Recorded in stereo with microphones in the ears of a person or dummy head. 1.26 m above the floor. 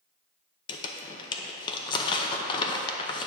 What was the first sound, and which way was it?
Crumpling, 25° left (ahead or behind).